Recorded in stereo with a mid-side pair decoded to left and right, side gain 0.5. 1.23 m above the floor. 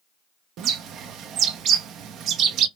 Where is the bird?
70° right, 0.5 m.